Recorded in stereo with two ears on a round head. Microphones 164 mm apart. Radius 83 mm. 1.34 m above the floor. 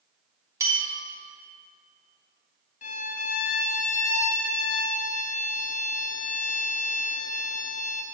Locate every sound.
0.6 s a bell: 15° right (ahead or behind), 1.6 m
2.8 s a violin: 40° left (ahead or behind), 0.5 m